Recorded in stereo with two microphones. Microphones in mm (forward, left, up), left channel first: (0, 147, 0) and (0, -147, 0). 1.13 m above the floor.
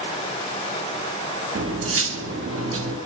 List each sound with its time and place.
1.6 s cutlery clinking: 45° right (ahead or behind), 0.9 m